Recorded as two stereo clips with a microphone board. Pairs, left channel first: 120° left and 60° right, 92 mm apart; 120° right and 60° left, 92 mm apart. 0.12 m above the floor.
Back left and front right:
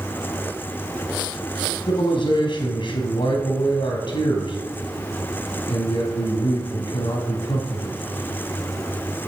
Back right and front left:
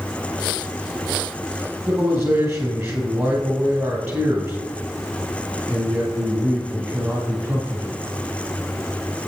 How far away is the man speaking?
About 2.5 m.